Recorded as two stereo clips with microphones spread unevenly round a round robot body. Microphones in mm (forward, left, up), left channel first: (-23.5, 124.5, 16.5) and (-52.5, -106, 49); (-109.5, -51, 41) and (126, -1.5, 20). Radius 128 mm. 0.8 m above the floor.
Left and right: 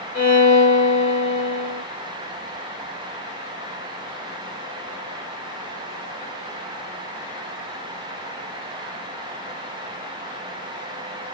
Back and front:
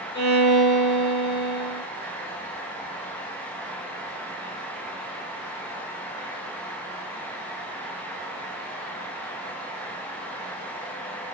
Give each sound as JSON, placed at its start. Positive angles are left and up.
{"t": 0.1, "sound": "a violin", "azimuth_deg": 145, "distance_m": 1.5}